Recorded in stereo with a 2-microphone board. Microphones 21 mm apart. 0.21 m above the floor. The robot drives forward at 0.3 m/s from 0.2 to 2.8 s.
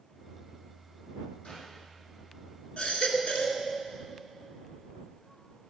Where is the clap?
75° left (ahead or behind), 7 m.